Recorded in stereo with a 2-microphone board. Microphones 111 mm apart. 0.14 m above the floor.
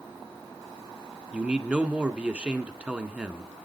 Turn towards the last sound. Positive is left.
turn(degrees=-10)  # may be behind; listen again after turning